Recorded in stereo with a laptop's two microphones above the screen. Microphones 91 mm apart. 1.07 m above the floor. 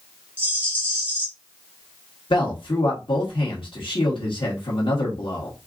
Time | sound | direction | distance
0.4 | a rattle | 25° right (ahead or behind) | 2 m
2.3 | a man speaking | 70° left (ahead or behind) | 1.5 m